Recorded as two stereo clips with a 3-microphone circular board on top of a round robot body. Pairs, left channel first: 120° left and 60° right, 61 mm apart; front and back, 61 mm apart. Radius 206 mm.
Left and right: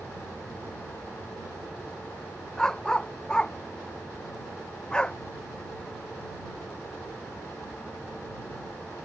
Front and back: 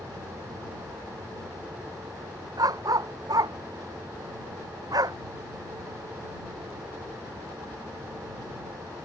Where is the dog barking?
160° right.